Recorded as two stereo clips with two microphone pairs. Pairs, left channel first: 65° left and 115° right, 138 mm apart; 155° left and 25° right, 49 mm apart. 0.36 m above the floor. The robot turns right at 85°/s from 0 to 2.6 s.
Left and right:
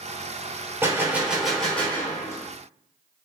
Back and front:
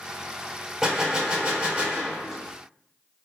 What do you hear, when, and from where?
0.8 s a gunshot: 85° right, 0.9 m; by 2.4 s 50° left, 0.9 m